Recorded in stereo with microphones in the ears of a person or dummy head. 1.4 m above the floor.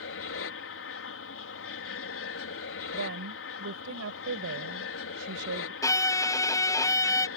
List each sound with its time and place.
0.0 s an aircraft: 65° left (ahead or behind)
2.9 s a woman speaking: 80° right
5.8 s a violin: 20° left (ahead or behind)